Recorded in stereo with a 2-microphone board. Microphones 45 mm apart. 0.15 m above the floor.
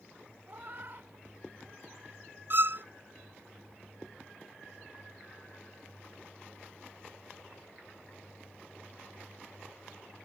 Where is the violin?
50° right (ahead or behind).